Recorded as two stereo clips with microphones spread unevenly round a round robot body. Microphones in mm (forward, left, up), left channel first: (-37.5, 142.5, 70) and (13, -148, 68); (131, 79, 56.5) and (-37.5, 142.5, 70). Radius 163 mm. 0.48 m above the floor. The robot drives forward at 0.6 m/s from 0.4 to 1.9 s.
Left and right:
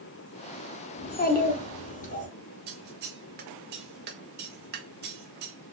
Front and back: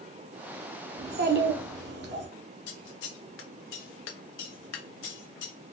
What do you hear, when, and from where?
1.0 s a child speaking: 145° left, 0.7 m; by 2.3 s 165° left, 1.2 m
2.7 s scissors: 20° right, 0.5 m